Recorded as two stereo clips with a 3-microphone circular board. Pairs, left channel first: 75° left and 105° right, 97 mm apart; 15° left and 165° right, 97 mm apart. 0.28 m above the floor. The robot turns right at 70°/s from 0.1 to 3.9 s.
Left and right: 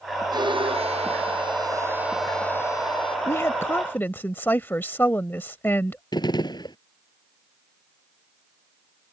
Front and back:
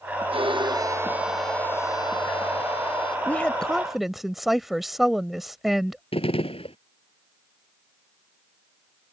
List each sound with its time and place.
0.3 s a violin: 150° right; by 3.2 s 50° left
3.3 s a woman speaking: 65° left; by 6.0 s 110° left
6.1 s a gunshot: 30° left